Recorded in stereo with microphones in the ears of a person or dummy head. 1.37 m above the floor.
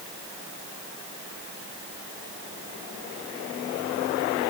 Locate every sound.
Only background noise.